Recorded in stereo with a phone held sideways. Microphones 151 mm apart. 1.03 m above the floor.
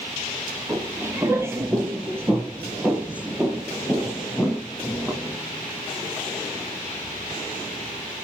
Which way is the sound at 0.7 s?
15° right (ahead or behind).